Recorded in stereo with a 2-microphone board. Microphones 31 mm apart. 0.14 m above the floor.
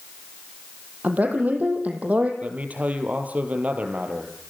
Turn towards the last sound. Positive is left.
turn(degrees=-50)  # may be behind; listen again after turning